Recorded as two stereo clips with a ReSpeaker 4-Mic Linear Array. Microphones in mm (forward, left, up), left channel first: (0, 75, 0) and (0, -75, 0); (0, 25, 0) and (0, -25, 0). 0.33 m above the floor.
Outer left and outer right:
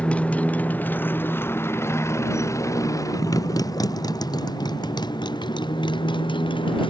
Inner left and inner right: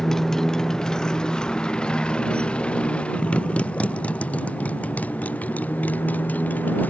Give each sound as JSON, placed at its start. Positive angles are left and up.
{"t": 0.0, "sound": "a motorcycle", "side_deg": 10}